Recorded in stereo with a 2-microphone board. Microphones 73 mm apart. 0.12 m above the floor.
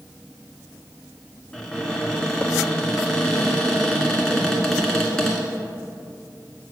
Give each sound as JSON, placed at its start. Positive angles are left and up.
{"t": 1.5, "sound": "a cupboard door", "side_deg": 10, "distance_m": 1.5}